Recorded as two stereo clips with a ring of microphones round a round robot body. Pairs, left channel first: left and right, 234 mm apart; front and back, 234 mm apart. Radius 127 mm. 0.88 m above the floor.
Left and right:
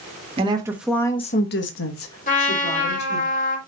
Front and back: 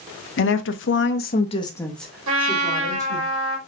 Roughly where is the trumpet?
Behind left.